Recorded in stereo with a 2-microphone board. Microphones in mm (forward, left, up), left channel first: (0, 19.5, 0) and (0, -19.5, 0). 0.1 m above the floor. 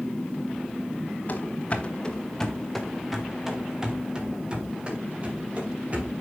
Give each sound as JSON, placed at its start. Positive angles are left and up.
{"t": 1.3, "sound": "running footsteps", "side_deg": 40, "distance_m": 1.7}